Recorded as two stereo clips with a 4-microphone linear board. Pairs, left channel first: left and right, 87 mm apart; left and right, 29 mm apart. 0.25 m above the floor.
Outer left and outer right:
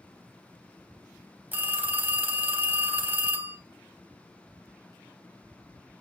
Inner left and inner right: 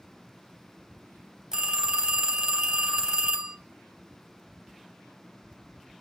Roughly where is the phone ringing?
Right.